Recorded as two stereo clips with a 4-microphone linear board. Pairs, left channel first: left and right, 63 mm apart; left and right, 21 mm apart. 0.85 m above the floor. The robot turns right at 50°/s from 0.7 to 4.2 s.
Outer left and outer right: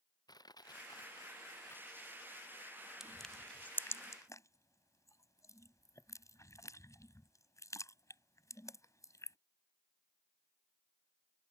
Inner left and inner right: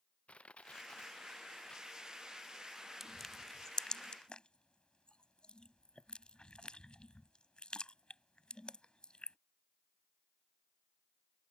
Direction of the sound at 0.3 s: 90° left.